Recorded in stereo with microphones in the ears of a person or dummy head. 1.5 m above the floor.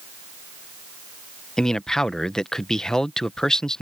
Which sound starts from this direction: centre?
A man speaking, at 1.6 s.